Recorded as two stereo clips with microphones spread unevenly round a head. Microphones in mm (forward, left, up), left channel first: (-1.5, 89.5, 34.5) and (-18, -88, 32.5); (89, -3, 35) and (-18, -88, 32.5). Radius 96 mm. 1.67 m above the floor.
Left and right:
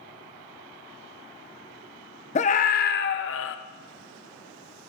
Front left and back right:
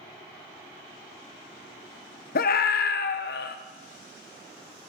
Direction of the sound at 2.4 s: 30° left.